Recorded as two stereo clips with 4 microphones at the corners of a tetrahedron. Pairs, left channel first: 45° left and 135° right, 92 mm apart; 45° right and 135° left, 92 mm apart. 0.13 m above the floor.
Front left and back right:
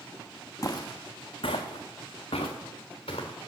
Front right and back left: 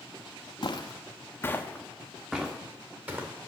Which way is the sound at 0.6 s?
10° right.